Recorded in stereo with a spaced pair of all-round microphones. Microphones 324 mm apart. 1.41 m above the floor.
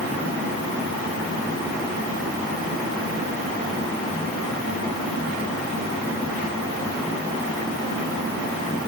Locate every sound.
Only background noise.